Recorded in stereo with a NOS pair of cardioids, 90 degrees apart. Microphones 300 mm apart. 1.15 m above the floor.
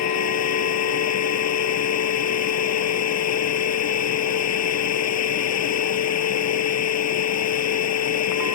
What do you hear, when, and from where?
0.0 s a machine running: 60° left